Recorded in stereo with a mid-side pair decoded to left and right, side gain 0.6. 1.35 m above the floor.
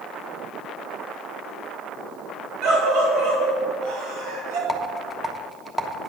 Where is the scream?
70° right, 3.5 m.